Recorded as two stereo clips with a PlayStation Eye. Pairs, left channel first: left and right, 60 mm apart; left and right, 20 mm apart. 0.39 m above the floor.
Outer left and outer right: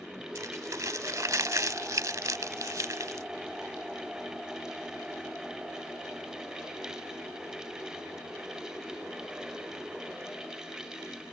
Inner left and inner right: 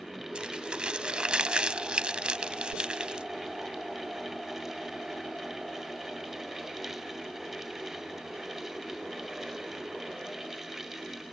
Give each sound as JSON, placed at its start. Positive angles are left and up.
{"t": 0.3, "sound": "crumpling", "side_deg": -65}